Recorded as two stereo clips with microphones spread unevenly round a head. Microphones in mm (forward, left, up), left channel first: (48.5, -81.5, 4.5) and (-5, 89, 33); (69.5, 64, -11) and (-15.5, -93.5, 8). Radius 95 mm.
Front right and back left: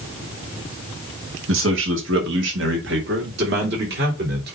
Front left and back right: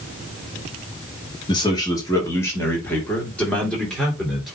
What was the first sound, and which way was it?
A man speaking, 130° left.